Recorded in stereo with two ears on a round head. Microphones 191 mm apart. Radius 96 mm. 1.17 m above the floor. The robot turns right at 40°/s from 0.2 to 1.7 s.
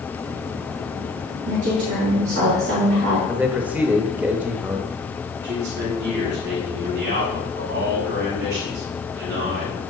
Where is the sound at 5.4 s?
50° right (ahead or behind), 4 m.